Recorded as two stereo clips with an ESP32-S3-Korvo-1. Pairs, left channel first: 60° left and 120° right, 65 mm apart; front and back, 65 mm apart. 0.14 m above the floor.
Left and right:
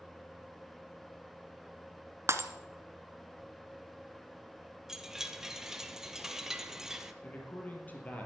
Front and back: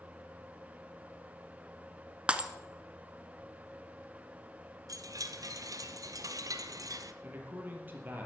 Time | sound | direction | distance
2.3 | breaking glass | 115° right | 1.2 m
4.9 | a chime | 155° left | 1.0 m
7.2 | a man speaking | 120° left | 4 m